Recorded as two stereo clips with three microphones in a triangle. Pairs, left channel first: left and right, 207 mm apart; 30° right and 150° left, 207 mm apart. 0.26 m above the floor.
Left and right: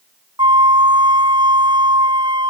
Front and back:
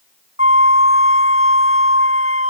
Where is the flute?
20° right.